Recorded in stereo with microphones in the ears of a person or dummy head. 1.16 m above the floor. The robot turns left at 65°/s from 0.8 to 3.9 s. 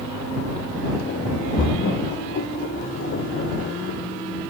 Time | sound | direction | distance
1.6 | a splash | 25° left (ahead or behind) | ?